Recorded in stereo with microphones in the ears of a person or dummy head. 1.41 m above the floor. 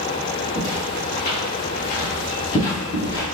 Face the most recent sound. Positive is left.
turn(degrees=15)  # may be behind; listen again after turning